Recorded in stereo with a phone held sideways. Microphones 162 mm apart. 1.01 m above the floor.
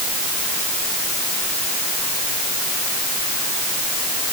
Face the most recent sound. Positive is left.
No sound to turn to.